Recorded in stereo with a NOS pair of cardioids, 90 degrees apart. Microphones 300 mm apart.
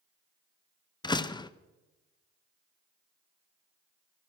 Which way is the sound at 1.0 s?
15° left.